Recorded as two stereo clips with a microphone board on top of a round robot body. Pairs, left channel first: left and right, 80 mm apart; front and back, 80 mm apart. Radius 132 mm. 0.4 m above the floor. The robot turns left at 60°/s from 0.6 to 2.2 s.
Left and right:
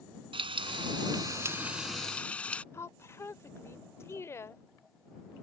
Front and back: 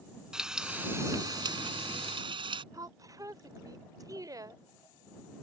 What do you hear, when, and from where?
0.3 s frying: 100° right; by 2.6 s 165° left
2.7 s a woman speaking: 145° left